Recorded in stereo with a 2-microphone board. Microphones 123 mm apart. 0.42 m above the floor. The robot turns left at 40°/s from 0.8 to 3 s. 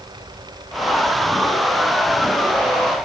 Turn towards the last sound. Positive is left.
No sound to turn to.